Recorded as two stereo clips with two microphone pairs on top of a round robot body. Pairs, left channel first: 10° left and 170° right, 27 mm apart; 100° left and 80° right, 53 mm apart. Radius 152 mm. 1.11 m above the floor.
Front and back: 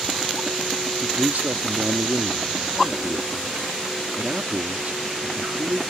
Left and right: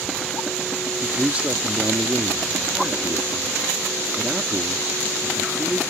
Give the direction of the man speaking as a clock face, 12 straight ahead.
5 o'clock.